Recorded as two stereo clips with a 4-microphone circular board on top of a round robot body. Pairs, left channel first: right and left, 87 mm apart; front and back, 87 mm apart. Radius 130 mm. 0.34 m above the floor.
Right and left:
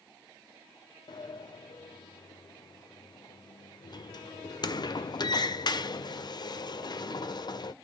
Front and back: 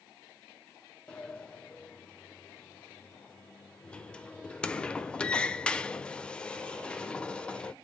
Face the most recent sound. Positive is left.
turn(degrees=-75)